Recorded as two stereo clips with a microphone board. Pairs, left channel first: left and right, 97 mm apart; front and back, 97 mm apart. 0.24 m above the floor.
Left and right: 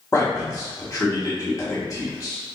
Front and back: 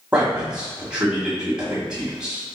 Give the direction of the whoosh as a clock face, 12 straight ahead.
No whoosh in this recording.